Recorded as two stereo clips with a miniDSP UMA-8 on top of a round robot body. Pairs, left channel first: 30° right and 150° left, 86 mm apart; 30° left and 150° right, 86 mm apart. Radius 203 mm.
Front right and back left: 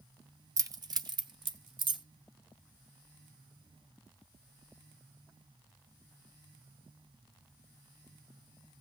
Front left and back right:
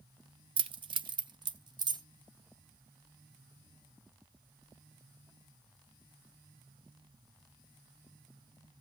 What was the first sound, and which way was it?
Keys jangling, 160° right.